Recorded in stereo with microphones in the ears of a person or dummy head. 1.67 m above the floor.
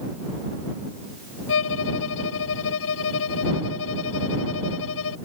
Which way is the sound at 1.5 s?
75° left (ahead or behind).